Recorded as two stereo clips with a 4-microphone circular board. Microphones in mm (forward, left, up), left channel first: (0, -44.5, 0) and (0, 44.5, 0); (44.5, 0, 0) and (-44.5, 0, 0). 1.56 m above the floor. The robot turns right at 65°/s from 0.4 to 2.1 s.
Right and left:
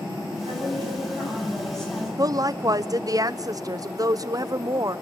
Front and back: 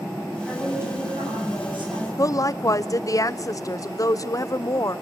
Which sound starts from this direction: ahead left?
A woman speaking, at 2.2 s.